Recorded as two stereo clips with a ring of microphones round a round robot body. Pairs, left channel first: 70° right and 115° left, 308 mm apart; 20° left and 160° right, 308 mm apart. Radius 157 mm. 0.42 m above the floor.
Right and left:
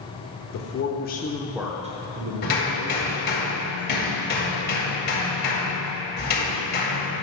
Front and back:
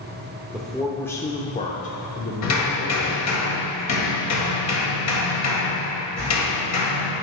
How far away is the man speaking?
About 1.1 m.